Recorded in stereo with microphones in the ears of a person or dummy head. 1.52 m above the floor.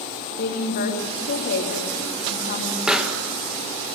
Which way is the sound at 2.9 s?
Centre (ahead or behind).